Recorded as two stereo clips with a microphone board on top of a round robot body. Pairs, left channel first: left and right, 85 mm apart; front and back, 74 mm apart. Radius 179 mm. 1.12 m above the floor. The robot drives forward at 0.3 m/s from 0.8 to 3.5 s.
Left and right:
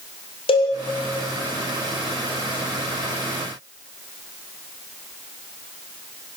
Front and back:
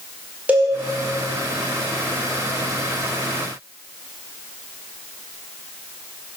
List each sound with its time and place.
0.5 s a cowbell: 110° left, 2.5 m